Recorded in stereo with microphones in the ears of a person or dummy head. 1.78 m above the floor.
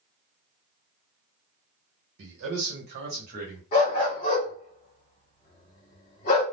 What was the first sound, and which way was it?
A man speaking, 65° right (ahead or behind).